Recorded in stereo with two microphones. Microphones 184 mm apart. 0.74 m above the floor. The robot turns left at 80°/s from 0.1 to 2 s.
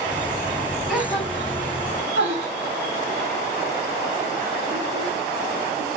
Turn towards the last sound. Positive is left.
turn(degrees=-70)  # may be behind; listen again after turning